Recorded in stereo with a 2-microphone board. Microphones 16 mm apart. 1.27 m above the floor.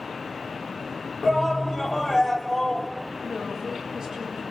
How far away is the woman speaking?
About 7.5 m.